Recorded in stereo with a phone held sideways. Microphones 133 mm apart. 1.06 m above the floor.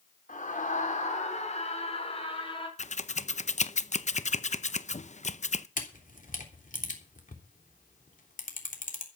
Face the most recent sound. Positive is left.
turn(degrees=80)